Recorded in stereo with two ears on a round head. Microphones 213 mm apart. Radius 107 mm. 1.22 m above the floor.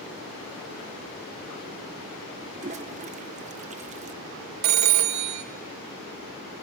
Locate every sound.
2.5 s a toilet flushing: 30° right (ahead or behind), 1.0 m
4.6 s a phone ringing: 80° right, 1.2 m